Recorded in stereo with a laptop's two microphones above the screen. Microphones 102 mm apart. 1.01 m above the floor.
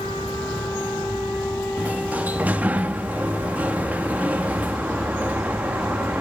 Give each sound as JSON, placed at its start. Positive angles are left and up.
{"t": 1.8, "sound": "a sliding door", "side_deg": -15, "distance_m": 1.6}